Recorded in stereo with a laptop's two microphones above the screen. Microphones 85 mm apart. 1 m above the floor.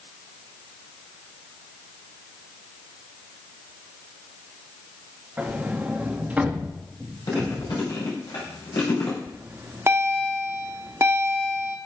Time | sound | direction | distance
5.4 | a sliding door | 20° right (ahead or behind) | 0.6 m
7.3 | chewing | 65° left (ahead or behind) | 3 m
9.3 | a bell | 35° right (ahead or behind) | 0.9 m